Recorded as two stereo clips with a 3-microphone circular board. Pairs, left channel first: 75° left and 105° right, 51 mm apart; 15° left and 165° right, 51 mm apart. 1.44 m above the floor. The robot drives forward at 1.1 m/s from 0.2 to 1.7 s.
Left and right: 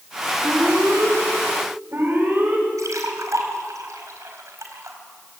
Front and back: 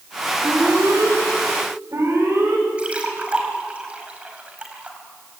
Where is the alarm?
140° right, 7 m; by 2.6 s 145° right, 8.5 m.